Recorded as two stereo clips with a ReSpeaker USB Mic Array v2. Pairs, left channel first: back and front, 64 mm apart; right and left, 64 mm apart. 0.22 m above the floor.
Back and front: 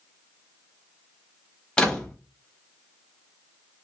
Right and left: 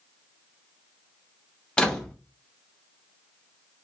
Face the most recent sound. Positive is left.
turn(degrees=-130)